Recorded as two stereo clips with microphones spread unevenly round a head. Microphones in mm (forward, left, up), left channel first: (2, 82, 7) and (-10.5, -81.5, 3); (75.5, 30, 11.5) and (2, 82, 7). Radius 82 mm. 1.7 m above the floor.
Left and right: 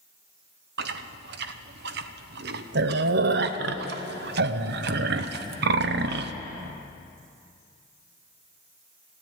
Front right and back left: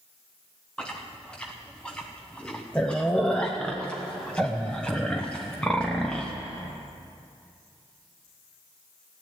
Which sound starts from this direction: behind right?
Chewing, at 0.8 s.